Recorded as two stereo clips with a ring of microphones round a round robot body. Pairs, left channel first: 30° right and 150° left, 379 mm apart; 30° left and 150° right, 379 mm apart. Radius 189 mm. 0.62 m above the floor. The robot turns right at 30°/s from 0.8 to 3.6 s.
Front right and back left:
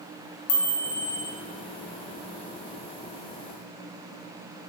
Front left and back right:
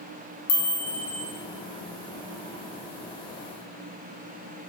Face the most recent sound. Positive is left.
turn(degrees=85)